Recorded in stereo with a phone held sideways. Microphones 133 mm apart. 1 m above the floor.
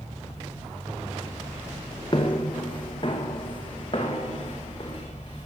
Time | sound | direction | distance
2.1 | footsteps | 40° left (ahead or behind) | 2.0 m